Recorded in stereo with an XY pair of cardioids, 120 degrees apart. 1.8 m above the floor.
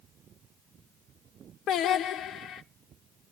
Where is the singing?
70° left, 0.9 m.